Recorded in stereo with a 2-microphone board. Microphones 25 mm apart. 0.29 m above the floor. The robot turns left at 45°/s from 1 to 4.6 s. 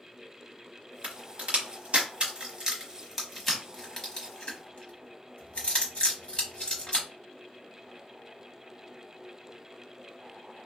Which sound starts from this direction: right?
A crack, at 1.0 s.